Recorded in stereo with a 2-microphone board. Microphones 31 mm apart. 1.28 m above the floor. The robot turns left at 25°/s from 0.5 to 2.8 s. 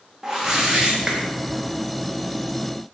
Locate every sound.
0.2 s a whoosh: 15° right (ahead or behind), 1.2 m; by 1.2 s 30° right (ahead or behind), 1.2 m